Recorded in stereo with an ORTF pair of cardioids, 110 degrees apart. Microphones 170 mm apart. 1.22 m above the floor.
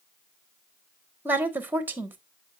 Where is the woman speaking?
10° right, 1.2 m.